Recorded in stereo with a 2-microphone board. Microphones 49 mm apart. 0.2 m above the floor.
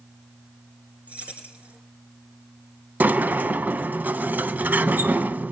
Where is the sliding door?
35° right (ahead or behind), 0.5 m.